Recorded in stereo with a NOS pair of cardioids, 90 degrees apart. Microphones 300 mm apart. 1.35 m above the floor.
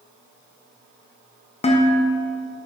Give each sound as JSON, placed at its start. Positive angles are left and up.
{"t": 1.6, "sound": "dishes clattering", "azimuth_deg": 20, "distance_m": 1.0}